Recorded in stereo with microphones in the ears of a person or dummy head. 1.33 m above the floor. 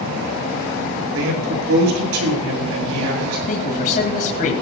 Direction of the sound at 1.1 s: 80° right.